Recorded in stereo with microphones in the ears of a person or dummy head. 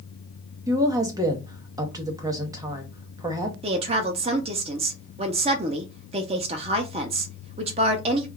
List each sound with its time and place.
0.7 s a woman speaking: 15° right (ahead or behind), 0.6 m
3.6 s a woman speaking: 30° right (ahead or behind), 0.5 m